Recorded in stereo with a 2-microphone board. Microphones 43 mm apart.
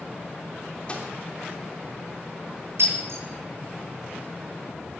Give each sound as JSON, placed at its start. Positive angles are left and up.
{"t": 0.9, "sound": "a microwave", "side_deg": 25, "distance_m": 3.0}
{"t": 2.8, "sound": "breaking glass", "side_deg": -70, "distance_m": 8.5}